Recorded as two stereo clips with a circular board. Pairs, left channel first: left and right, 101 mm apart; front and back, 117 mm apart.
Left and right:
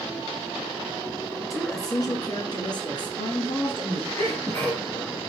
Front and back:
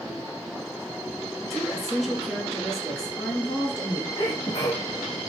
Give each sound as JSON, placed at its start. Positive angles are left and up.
{"t": 1.5, "sound": "a woman speaking", "azimuth_deg": 85, "distance_m": 1.9}
{"t": 4.2, "sound": "a sneeze", "azimuth_deg": 35, "distance_m": 1.6}